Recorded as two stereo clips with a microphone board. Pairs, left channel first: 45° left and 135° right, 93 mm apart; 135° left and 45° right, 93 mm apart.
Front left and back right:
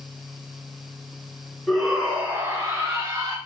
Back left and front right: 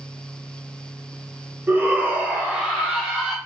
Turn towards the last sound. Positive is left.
turn(degrees=-125)